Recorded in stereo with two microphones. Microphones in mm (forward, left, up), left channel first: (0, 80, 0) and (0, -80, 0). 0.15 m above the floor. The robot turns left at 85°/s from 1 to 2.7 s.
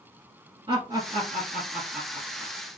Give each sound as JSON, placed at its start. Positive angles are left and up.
{"t": 0.7, "sound": "laughter", "side_deg": -30, "distance_m": 1.9}